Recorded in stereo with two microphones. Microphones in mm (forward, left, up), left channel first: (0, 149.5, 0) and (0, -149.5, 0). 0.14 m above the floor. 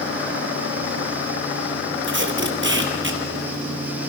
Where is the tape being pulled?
40° right (ahead or behind), 2.5 m.